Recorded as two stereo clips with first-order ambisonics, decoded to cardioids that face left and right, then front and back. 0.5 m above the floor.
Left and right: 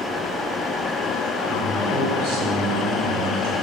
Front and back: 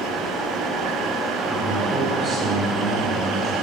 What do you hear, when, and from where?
1.5 s a man speaking: 110° right, 6.5 m; by 3.5 s 115° right, 4.5 m